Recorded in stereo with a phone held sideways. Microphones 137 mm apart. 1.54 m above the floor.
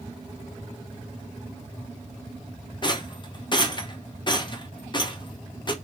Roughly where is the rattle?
Left.